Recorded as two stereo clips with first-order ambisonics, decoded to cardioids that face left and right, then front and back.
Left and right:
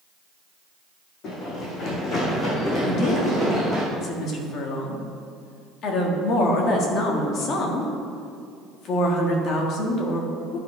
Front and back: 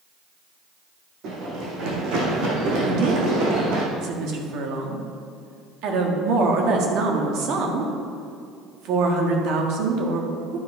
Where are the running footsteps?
140° left, 2.5 m; by 3.8 s 175° left, 3.5 m.